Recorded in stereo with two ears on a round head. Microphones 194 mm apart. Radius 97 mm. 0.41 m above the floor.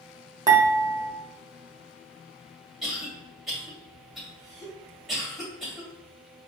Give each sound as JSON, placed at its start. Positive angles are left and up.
{"t": 0.5, "sound": "dishes clattering", "side_deg": -20, "distance_m": 0.9}
{"t": 2.8, "sound": "a cough", "side_deg": 0, "distance_m": 2.0}